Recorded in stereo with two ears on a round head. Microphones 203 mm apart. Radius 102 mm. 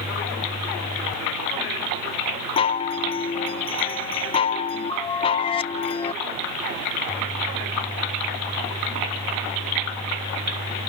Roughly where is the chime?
Left.